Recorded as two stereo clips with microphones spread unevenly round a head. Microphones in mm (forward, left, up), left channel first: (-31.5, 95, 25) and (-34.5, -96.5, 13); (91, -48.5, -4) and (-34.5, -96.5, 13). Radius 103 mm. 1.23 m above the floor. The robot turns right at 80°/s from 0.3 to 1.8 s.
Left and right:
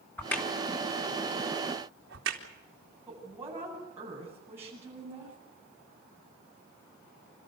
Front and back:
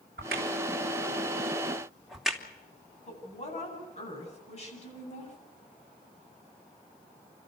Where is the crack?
170° left, 3 m; by 2.4 s 70° right, 3 m.